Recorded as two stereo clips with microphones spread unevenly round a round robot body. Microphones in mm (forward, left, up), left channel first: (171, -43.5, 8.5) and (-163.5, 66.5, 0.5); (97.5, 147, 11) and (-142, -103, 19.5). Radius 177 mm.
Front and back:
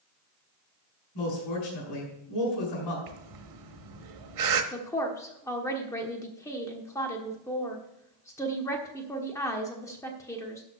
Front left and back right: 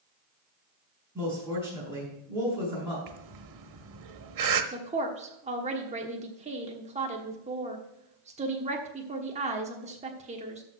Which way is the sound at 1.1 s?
50° right.